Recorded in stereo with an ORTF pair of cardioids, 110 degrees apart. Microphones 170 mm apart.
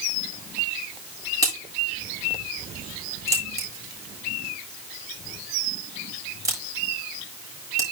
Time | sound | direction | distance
1.4 | a crack | 20° right | 8 m